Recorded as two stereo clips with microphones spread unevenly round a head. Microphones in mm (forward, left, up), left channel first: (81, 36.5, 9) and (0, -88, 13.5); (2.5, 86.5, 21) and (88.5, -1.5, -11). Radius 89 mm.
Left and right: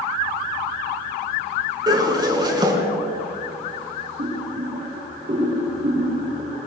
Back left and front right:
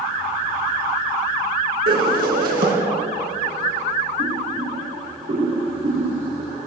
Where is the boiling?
80° right, 6.5 m.